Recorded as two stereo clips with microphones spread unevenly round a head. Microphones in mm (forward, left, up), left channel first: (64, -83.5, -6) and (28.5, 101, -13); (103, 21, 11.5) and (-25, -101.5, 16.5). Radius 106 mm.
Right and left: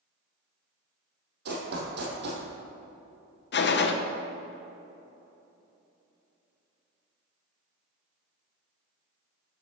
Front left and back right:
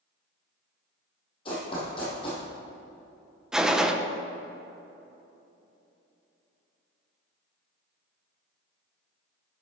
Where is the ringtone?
I don't hear a ringtone.